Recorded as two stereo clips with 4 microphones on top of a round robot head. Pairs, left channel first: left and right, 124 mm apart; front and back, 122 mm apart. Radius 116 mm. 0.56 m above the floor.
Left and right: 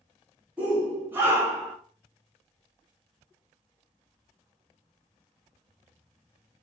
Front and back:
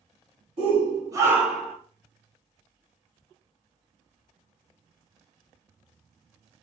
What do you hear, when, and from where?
0.6 s a shout: 165° right, 1.5 m; by 1.8 s 60° right, 1.0 m